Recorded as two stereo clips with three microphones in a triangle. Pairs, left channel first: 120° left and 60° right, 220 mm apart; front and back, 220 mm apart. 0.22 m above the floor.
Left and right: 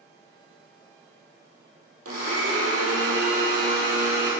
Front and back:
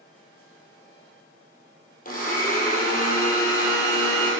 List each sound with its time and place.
2.0 s a blender: 55° right, 3 m